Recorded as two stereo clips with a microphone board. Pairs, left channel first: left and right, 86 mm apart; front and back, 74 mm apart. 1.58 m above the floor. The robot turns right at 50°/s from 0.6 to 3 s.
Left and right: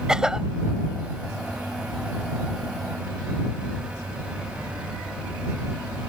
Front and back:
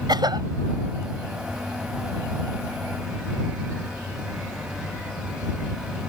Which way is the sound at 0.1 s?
170° right.